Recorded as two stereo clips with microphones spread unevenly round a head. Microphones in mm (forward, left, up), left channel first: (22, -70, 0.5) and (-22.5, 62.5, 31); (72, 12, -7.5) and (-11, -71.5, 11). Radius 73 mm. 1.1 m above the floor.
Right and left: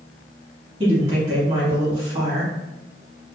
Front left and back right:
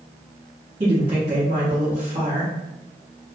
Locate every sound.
0.8 s a woman speaking: 165° left, 1.4 m